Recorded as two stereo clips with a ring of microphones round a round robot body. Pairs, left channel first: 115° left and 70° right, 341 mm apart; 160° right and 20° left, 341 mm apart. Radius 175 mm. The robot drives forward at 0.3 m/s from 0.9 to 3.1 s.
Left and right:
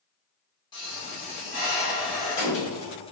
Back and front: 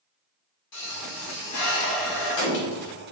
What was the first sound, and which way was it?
A pop, straight behind.